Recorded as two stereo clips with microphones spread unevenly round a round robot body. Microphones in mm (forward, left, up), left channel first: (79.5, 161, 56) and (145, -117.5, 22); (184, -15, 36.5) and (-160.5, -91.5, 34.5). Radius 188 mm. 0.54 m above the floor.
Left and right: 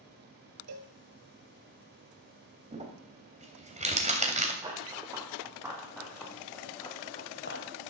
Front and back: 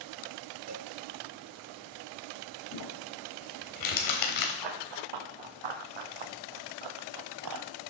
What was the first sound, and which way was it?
A cowbell, 120° right.